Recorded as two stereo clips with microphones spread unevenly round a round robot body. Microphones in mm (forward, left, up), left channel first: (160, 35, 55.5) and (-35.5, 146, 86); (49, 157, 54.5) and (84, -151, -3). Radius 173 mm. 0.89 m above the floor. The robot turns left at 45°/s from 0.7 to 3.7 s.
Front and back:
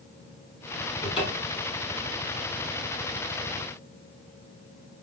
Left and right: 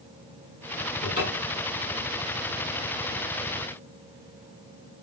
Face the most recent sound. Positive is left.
turn(degrees=-75)